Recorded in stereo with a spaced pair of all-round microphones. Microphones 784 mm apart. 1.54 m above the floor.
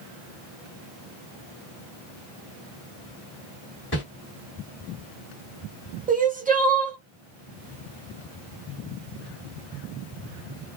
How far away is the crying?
About 0.8 m.